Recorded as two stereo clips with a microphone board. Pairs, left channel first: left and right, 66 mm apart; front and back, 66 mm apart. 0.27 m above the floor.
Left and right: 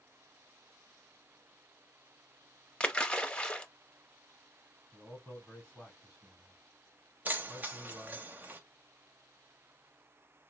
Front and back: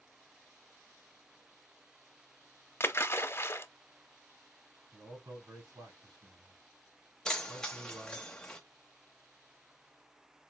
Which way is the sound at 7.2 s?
65° right.